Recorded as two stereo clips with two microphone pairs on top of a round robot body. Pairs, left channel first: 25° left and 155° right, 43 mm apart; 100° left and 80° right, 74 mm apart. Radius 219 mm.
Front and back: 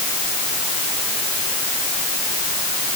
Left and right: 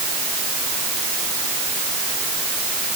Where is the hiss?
No hiss in this recording.